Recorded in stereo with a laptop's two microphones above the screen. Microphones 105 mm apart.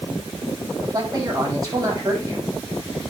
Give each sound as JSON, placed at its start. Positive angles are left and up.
{"t": 0.8, "sound": "a man speaking", "side_deg": -35, "distance_m": 6.5}